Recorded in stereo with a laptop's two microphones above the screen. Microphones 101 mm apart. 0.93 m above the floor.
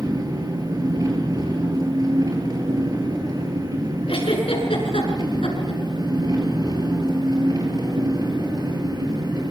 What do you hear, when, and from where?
0.0 s an engine running: 35° right (ahead or behind), 6 m
4.1 s a giggle: 65° left (ahead or behind), 6 m